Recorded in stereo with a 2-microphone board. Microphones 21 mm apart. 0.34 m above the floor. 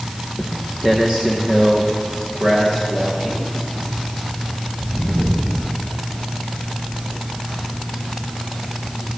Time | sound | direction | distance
0.4 | footsteps | 20° right (ahead or behind) | 1.5 m